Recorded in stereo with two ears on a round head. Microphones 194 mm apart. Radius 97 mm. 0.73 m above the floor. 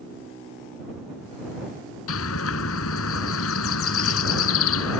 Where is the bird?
75° left (ahead or behind).